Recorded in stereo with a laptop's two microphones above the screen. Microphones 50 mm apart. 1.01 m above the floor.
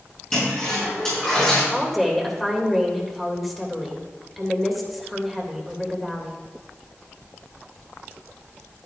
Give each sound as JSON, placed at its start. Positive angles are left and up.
{"t": 0.3, "sound": "a toilet flushing", "side_deg": 15, "distance_m": 5.0}
{"t": 1.7, "sound": "a woman speaking", "side_deg": 0, "distance_m": 3.0}